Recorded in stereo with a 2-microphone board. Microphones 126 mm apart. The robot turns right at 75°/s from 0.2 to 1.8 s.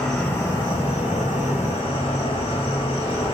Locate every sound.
0.0 s an insect: 10° left, 1.0 m; by 3.4 s 130° left, 1.0 m